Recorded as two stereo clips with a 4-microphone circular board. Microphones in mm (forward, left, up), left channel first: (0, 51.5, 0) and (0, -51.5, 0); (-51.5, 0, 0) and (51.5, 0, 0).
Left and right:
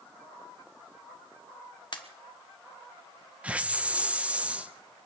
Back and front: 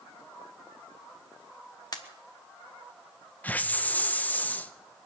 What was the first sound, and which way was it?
A pop, 130° left.